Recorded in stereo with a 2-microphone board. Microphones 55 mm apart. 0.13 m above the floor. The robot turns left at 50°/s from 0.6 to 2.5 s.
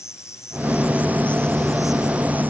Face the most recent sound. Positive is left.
turn(degrees=-35)